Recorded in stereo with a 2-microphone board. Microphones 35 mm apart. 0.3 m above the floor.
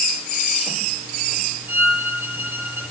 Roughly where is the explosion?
I don't hear an explosion.